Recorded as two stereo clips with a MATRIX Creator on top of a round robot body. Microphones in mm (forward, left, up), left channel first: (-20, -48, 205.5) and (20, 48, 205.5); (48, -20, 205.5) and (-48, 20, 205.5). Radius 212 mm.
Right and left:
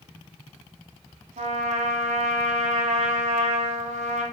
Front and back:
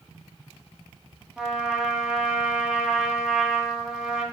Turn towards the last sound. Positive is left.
turn(degrees=75)